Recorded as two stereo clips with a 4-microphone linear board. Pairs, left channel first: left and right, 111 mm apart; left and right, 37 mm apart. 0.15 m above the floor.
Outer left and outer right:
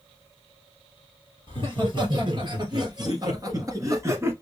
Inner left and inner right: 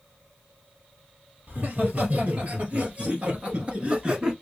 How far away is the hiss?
I don't hear a hiss.